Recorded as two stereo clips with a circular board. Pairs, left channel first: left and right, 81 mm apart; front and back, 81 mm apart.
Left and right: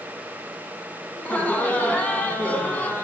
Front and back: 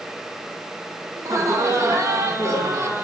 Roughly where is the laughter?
Behind left.